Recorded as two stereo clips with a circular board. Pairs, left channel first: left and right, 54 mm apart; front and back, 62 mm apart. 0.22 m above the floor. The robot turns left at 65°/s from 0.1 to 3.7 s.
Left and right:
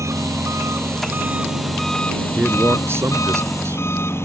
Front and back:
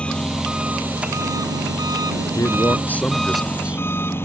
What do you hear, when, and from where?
0.0 s an engine running: 75° right; by 4.2 s 50° left
2.4 s a man speaking: 25° right; by 3.8 s 110° right